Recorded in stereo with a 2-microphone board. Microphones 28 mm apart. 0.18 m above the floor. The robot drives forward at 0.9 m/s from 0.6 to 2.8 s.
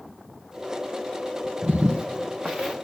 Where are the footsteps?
65° right (ahead or behind), 0.6 m; by 2.8 s 10° right (ahead or behind), 1.6 m.